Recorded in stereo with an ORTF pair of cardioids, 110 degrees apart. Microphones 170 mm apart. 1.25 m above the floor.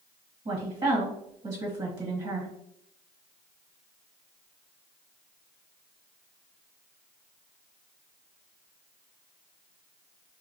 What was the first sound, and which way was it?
A woman speaking, 35° right.